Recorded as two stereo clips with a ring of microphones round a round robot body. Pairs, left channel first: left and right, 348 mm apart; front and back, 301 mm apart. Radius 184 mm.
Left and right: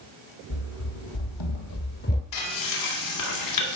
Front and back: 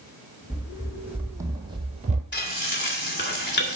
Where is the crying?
No crying in this recording.